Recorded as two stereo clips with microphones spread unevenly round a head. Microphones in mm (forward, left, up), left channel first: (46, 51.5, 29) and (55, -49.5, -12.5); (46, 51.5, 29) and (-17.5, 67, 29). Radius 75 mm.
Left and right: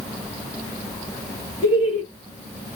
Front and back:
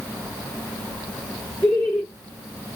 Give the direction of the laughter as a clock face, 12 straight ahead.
4 o'clock.